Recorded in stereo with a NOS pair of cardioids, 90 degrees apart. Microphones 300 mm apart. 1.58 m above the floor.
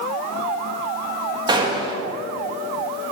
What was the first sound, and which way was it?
A gunshot, 15° right.